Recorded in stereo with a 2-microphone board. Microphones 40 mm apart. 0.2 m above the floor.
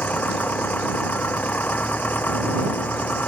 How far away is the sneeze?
No sneeze in this recording.